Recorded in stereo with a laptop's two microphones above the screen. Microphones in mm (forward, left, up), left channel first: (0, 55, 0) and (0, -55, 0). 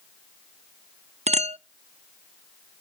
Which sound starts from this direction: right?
A clink, at 1.3 s.